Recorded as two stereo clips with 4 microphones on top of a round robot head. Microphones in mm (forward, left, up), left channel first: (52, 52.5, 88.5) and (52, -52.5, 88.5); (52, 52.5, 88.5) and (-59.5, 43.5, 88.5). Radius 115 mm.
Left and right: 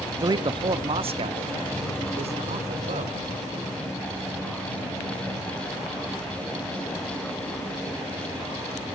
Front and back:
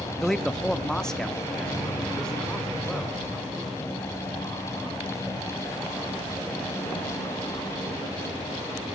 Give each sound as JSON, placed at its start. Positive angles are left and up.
{"t": 0.1, "sound": "a man speaking", "azimuth_deg": -80, "distance_m": 0.6}